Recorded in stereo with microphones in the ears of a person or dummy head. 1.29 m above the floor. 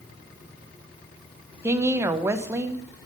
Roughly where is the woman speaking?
Centre.